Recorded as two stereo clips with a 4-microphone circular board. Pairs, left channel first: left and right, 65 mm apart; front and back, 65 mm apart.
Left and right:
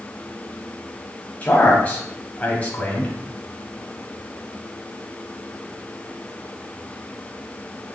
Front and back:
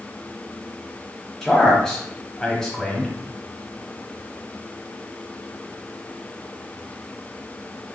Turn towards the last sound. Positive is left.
turn(degrees=70)